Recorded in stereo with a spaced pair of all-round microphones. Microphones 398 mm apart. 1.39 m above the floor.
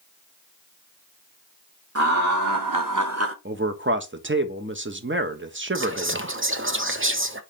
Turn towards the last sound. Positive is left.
turn(degrees=-30)  # may be behind; listen again after turning